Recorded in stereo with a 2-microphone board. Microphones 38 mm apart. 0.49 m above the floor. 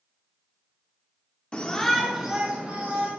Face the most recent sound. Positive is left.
turn(degrees=-35)  # may be behind; listen again after turning